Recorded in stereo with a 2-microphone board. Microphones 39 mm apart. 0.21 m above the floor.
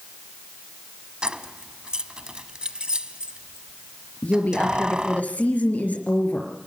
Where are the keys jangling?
25° right (ahead or behind), 0.8 m.